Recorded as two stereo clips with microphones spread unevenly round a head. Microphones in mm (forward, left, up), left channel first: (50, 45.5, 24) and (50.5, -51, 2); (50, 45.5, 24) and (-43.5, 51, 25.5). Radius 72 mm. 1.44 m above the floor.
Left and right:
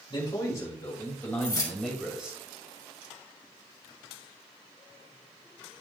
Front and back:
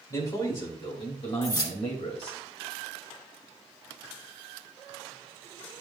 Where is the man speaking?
40° left, 3.5 m; by 2.4 s 15° right, 2.5 m.